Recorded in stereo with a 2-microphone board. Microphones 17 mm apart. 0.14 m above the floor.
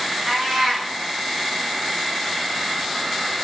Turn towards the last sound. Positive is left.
turn(degrees=-70)  # may be behind; listen again after turning